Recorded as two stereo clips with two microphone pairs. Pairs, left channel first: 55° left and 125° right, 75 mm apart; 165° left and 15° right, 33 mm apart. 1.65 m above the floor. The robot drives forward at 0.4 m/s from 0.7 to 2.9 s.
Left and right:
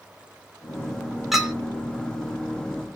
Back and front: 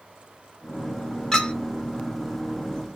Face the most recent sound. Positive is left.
turn(degrees=175)